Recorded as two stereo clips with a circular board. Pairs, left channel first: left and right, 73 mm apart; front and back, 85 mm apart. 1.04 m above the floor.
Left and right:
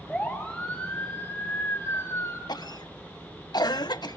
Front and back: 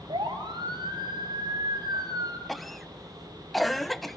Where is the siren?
170° left, 7.5 m; by 2.4 s 145° left, 5.5 m.